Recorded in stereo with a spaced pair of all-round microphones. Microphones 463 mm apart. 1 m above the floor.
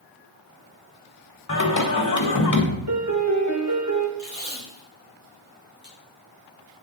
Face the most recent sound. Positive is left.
turn(degrees=-55)  # may be behind; listen again after turning